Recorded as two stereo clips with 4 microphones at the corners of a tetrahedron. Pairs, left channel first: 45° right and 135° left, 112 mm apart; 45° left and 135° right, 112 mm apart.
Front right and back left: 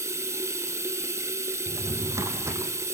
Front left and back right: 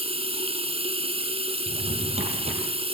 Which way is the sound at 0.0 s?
160° right.